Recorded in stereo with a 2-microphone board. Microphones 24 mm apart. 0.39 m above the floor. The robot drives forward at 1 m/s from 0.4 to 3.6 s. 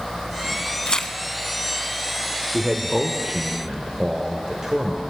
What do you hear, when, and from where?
0.9 s tearing paper: 40° left (ahead or behind), 0.5 m; by 1.1 s 25° left (ahead or behind), 0.8 m
2.5 s a man speaking: 20° right (ahead or behind), 1.1 m; by 5.0 s 15° right (ahead or behind), 1.4 m